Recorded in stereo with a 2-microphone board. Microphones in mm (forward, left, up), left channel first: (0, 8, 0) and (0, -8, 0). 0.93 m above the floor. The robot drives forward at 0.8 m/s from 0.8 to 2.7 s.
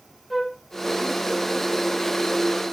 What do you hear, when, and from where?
0.3 s a flute: 10° left (ahead or behind), 1.6 m